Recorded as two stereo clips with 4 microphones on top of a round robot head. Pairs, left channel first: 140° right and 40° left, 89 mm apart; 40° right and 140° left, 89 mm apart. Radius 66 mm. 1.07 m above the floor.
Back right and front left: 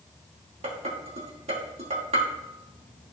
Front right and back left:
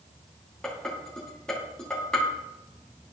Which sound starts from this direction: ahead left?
Dishes clattering, at 0.6 s.